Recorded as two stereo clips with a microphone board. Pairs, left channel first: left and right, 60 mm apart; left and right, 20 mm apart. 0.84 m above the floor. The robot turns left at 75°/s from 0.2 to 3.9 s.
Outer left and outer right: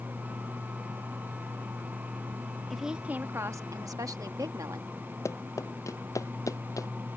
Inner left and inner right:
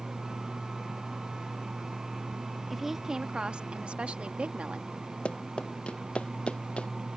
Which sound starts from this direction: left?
Running footsteps, at 5.2 s.